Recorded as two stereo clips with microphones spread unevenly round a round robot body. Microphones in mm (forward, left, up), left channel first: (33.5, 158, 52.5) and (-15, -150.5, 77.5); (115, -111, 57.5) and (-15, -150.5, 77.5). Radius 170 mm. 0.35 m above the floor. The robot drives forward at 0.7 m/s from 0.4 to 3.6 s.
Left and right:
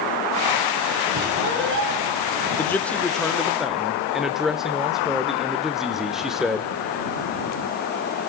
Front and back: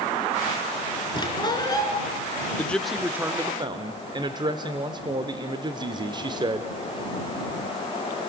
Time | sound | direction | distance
1.1 | a squeak | 40° right | 3.5 m
2.6 | a man speaking | 20° left | 0.9 m